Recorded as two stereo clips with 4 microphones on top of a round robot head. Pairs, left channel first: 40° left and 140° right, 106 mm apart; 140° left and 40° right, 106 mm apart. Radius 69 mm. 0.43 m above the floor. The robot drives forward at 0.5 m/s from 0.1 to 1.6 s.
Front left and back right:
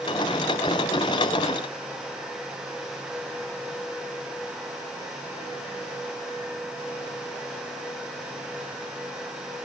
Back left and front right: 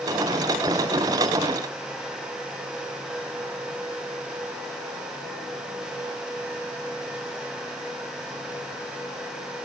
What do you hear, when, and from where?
Only background noise.